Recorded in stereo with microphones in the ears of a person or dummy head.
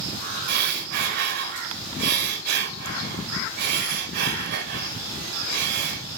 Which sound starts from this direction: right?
Breathing, at 0.5 s.